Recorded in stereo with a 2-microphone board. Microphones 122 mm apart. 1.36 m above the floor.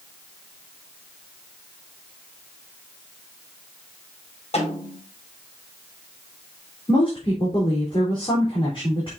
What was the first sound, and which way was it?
A snare drum, 55° left (ahead or behind).